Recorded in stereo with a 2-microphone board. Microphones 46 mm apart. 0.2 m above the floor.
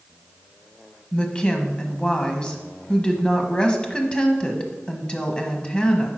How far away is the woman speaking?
About 1.1 m.